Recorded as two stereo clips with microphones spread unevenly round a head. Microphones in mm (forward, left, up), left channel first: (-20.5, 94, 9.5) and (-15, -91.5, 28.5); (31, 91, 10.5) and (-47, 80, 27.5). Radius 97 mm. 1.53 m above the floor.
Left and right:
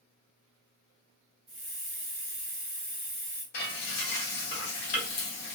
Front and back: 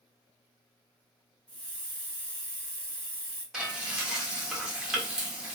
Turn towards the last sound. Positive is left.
turn(degrees=120)